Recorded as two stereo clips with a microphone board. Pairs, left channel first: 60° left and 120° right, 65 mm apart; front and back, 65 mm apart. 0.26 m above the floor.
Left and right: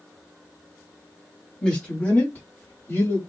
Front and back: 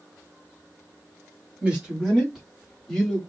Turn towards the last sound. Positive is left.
turn(degrees=70)